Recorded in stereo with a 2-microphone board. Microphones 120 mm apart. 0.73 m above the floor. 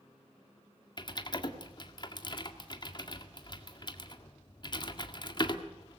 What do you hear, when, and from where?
1.0 s typing on a keyboard: 40° left (ahead or behind), 1.8 m